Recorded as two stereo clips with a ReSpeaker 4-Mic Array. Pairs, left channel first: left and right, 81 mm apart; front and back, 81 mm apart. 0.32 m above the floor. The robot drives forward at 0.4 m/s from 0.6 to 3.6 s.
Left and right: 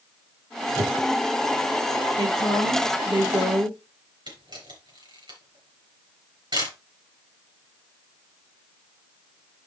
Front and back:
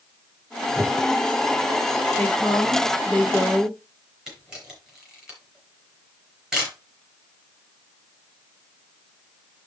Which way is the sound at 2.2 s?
75° right.